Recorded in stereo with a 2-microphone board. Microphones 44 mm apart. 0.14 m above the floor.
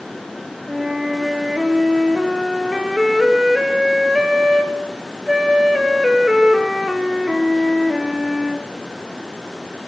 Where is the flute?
10° right (ahead or behind), 2 m.